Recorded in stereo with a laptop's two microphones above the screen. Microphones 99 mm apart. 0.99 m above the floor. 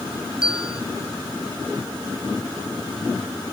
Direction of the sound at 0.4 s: 10° right (ahead or behind).